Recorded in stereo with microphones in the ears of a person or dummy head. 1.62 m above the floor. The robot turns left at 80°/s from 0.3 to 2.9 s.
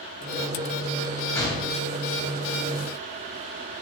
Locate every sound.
1.4 s a gunshot: 155° left, 0.8 m; by 1.8 s 120° left, 0.8 m